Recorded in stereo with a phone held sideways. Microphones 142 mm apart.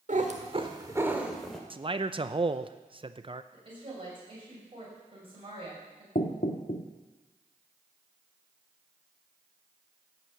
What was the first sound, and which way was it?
A cat meowing, 65° right (ahead or behind).